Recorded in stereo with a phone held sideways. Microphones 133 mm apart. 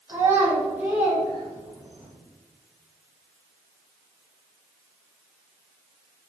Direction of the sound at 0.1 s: 20° right (ahead or behind).